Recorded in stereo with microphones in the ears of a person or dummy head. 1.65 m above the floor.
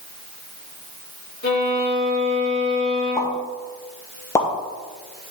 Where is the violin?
50° left (ahead or behind), 3.5 m.